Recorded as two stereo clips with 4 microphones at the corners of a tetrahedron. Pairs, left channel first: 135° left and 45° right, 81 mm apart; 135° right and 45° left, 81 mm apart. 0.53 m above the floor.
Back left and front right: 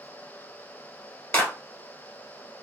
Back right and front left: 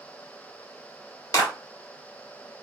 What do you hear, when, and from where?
1.3 s a clap: 170° right, 1.6 m